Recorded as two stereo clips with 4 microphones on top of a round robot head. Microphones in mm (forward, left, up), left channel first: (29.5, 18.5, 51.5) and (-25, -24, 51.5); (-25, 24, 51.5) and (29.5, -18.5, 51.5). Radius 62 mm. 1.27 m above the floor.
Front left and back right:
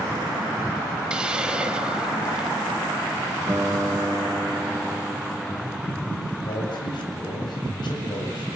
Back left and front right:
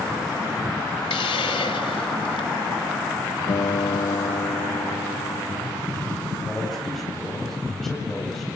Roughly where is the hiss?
Behind left.